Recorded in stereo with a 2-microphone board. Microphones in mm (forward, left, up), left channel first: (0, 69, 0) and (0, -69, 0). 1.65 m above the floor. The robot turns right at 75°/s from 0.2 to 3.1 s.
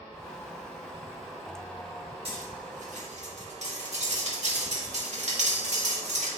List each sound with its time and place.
2.2 s cutlery clinking: 45° right (ahead or behind), 1.9 m; by 6.3 s 60° right (ahead or behind), 1.9 m